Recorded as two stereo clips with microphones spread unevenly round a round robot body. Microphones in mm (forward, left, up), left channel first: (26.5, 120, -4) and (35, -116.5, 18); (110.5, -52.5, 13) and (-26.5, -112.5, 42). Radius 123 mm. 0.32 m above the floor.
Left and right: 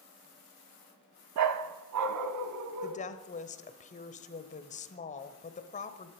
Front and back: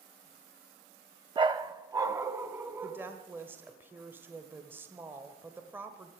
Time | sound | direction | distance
1.4 | a dog barking | 95° right | 0.9 m
2.8 | a woman speaking | 120° left | 1.1 m